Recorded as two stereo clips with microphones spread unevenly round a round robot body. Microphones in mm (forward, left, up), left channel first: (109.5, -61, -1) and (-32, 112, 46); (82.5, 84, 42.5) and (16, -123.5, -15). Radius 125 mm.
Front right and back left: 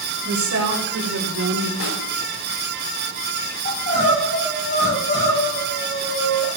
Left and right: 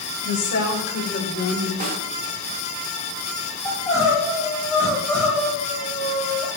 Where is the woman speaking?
105° left, 4 m; by 1.7 s 130° left, 2 m.